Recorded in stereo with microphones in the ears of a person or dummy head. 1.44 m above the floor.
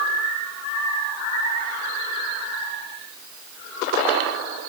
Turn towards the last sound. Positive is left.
No sound to turn to.